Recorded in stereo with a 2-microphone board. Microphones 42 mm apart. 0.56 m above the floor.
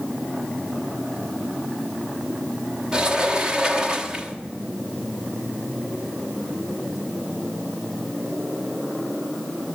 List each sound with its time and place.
2.9 s a sliding door: 15° right (ahead or behind), 1.1 m